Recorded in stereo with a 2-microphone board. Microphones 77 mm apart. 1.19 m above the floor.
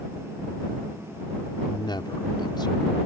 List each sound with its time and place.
1.7 s a man speaking: 75° left (ahead or behind)